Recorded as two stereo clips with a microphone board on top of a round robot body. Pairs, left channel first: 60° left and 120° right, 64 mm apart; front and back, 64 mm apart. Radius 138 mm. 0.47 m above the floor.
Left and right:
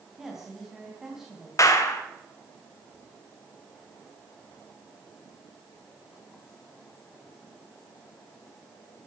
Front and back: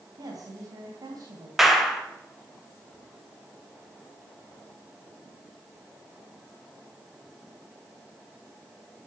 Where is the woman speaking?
160° left, 4 m.